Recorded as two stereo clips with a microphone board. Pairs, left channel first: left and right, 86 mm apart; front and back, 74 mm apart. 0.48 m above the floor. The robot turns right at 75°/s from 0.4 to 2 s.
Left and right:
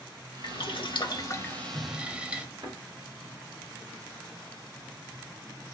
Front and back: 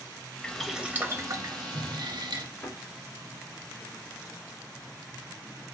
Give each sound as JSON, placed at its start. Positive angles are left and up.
{"t": 0.4, "sound": "boiling", "azimuth_deg": 75, "distance_m": 0.6}
{"t": 2.6, "sound": "a thud", "azimuth_deg": -55, "distance_m": 3.0}